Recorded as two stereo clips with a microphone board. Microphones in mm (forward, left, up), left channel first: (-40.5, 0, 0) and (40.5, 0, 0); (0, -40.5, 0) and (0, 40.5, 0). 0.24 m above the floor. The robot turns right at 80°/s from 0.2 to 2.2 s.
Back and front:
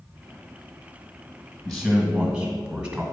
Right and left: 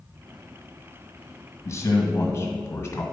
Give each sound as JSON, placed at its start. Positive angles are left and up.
{"t": 1.6, "sound": "a man speaking", "azimuth_deg": -100, "distance_m": 1.8}